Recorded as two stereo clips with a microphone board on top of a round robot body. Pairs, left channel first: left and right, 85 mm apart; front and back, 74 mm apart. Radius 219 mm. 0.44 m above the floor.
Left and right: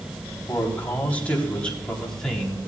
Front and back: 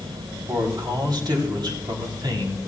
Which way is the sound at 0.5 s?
155° left.